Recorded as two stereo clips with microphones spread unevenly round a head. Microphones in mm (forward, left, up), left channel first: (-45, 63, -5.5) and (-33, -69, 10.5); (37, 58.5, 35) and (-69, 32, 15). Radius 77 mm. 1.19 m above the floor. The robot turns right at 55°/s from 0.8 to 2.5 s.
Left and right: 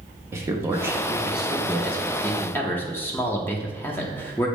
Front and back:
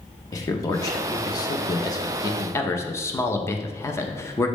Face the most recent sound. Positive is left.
turn(degrees=70)